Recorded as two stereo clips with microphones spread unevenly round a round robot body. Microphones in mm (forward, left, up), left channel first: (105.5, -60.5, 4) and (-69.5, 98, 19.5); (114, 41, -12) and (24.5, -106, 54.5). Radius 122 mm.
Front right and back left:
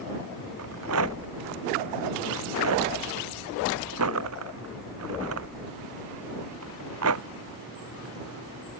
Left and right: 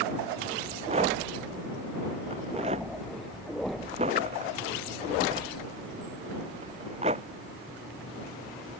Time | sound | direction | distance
0.6 | a rattle | 175° left | ?